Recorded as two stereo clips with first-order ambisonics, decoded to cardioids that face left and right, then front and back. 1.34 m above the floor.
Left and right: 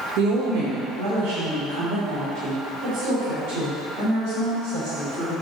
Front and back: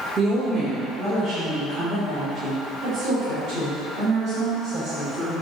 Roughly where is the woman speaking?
Right.